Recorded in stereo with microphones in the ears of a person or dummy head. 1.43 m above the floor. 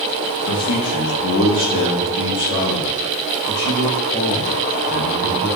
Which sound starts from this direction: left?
A man speaking, at 0.5 s.